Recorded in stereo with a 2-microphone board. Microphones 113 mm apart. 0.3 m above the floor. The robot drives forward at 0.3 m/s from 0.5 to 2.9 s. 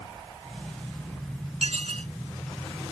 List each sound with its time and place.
1.6 s dishes clattering: 70° right (ahead or behind)